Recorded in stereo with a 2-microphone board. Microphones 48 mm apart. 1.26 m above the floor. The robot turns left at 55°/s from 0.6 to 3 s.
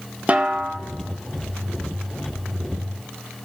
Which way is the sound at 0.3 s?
30° right (ahead or behind).